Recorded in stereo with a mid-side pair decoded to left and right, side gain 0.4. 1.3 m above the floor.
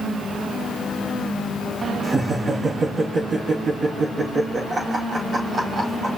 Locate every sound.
2.0 s laughter: 35° right, 2.5 m